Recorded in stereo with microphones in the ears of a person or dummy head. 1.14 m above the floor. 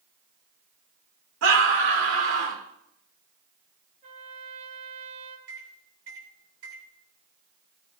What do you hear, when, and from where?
1.4 s a scream: 80° right, 2.5 m
4.0 s a trumpet: 40° right (ahead or behind), 1.7 m
5.5 s a microwave: 85° right, 3.5 m